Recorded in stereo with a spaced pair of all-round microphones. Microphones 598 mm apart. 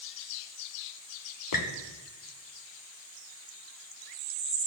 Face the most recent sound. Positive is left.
turn(degrees=35)  # may be behind; listen again after turning